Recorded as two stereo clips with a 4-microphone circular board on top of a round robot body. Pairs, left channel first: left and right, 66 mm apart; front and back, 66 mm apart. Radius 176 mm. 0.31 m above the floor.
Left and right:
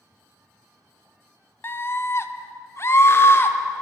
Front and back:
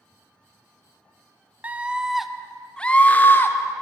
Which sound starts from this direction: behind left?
A scream, at 1.6 s.